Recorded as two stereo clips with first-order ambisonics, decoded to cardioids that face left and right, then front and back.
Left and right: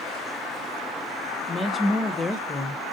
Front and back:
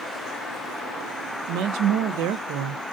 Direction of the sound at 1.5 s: 170° left.